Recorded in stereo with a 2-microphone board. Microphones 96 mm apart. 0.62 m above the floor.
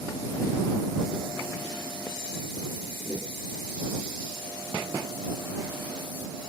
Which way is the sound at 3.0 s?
20° right (ahead or behind).